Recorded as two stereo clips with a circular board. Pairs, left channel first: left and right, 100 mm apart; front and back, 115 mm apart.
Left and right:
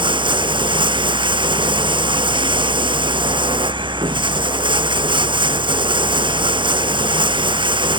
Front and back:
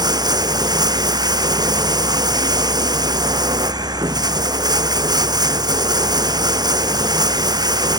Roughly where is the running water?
Behind right.